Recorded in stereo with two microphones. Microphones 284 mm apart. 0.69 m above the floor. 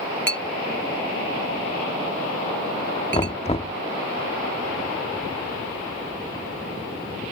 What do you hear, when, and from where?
0.3 s a clink: 40° left (ahead or behind)
3.1 s knocking: 20° left (ahead or behind)